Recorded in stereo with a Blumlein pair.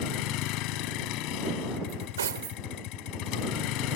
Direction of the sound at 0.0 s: 40° left.